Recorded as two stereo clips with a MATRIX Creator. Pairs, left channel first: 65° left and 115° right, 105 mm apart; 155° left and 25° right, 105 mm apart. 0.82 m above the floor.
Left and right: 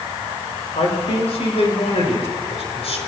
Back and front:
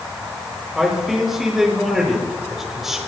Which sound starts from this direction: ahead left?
A man speaking, at 0.8 s.